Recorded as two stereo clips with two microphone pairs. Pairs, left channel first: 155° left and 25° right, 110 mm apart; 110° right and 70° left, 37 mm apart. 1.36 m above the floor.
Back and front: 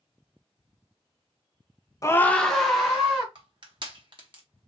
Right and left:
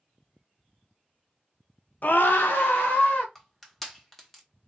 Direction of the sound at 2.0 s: 145° right.